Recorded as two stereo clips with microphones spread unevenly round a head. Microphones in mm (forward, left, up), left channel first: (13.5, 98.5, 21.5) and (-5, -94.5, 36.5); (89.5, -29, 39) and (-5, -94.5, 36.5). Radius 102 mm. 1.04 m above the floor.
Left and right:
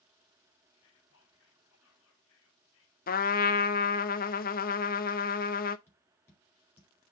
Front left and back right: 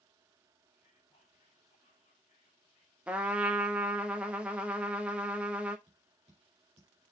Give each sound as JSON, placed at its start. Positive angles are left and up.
{"t": 0.7, "sound": "whispering", "azimuth_deg": 85, "distance_m": 2.5}
{"t": 3.1, "sound": "a trumpet", "azimuth_deg": 130, "distance_m": 0.8}
{"t": 5.9, "sound": "tapping", "azimuth_deg": 165, "distance_m": 4.5}